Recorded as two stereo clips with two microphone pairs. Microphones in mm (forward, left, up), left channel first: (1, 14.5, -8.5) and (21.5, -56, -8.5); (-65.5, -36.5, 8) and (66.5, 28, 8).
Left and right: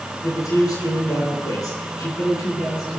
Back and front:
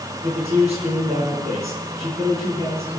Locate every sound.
0.2 s a man speaking: 70° left, 8.5 m